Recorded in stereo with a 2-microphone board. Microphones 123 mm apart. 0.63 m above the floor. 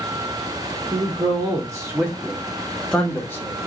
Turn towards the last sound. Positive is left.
turn(degrees=25)  # may be behind; listen again after turning